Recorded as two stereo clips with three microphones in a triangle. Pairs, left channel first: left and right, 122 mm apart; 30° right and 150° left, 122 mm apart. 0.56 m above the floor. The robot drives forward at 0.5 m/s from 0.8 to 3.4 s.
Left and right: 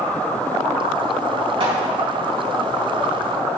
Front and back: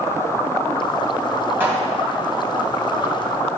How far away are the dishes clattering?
About 2.5 m.